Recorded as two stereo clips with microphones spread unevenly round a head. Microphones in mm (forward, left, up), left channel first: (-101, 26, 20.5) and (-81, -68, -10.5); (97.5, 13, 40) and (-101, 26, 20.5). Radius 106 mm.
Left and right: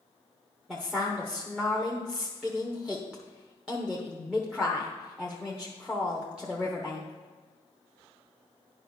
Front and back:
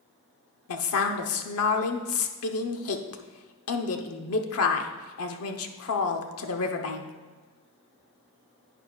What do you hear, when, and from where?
0.7 s a woman speaking: 5° left, 1.0 m